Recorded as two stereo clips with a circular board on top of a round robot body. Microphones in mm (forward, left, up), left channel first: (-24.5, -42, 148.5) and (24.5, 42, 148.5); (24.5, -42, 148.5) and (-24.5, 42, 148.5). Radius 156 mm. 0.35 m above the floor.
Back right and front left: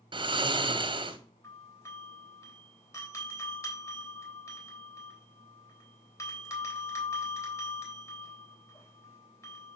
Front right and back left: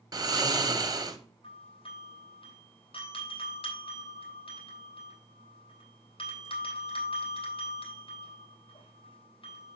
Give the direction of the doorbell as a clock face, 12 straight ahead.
2 o'clock.